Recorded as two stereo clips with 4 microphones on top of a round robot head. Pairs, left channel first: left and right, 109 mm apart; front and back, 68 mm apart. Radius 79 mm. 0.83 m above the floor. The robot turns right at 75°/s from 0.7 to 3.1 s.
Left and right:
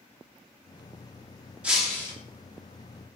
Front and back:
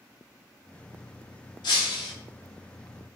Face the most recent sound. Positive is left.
turn(degrees=100)